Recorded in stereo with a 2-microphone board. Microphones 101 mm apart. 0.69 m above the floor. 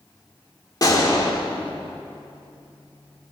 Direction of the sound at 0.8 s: 40° left (ahead or behind).